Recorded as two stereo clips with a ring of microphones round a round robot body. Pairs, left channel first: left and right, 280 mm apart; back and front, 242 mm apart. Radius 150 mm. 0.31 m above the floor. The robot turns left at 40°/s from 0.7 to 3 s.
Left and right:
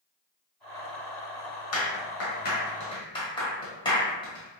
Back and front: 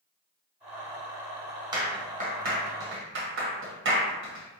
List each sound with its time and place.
1.7 s a clap: 70° left, 1.8 m; by 4.6 s 20° left, 1.8 m